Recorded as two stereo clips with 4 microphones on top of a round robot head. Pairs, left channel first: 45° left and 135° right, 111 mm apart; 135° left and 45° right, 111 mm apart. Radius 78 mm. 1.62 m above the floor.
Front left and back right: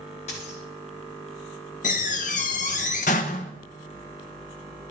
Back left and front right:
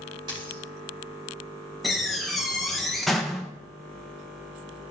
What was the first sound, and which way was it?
A dropped coin, 10° left.